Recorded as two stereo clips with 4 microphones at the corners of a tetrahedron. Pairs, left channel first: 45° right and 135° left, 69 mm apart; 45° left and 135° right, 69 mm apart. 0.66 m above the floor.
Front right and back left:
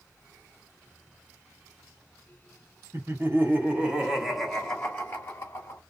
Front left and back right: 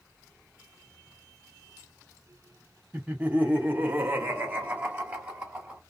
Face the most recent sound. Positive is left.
turn(degrees=-70)